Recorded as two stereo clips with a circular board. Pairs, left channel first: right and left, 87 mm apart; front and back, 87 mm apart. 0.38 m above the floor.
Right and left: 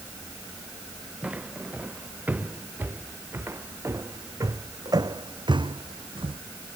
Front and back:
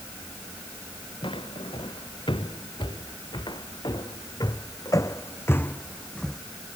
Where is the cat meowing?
I don't hear a cat meowing.